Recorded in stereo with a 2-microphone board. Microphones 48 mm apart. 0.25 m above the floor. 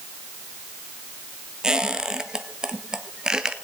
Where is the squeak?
15° right (ahead or behind), 1.0 m.